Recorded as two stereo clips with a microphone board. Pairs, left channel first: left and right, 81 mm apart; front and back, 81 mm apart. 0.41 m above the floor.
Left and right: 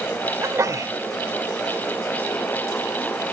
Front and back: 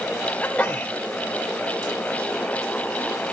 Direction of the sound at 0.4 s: 65° right.